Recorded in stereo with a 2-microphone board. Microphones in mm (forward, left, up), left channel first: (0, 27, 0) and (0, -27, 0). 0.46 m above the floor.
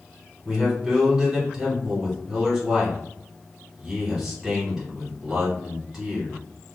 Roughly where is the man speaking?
Centre.